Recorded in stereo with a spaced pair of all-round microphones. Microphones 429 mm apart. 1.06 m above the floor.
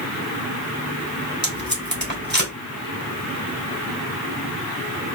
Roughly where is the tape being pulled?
Right.